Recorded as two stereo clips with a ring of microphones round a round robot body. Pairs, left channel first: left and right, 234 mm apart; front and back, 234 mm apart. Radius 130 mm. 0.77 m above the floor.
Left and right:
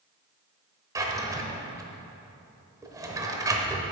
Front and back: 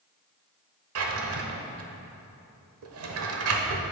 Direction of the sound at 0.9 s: 165° right.